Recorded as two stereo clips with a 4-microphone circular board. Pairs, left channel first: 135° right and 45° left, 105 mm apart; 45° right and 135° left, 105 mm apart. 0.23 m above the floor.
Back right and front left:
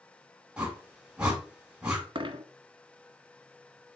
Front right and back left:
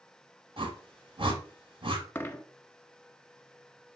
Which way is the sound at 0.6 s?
125° left.